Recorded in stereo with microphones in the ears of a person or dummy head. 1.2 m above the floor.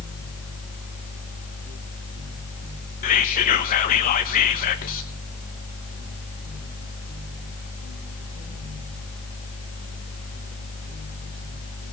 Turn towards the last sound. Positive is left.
turn(degrees=40)  # may be behind; listen again after turning